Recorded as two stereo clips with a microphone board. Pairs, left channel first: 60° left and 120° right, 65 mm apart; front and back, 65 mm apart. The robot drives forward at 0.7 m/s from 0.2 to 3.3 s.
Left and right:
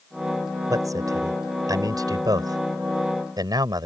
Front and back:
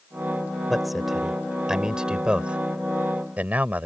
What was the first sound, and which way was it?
A man speaking, 90° right.